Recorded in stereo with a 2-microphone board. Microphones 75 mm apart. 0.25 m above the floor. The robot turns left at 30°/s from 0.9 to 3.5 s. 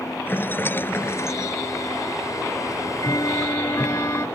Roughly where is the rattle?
Left.